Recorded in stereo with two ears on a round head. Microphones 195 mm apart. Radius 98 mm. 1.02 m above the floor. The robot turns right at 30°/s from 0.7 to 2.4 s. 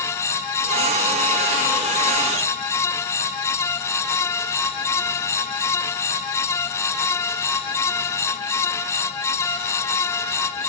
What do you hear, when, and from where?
Only background noise.